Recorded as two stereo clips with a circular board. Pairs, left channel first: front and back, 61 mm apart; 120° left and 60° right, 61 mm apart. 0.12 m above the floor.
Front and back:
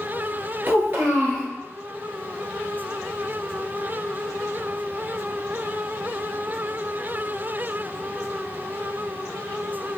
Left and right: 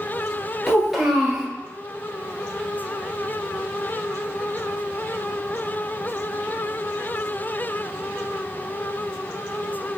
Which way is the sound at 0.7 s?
145° right.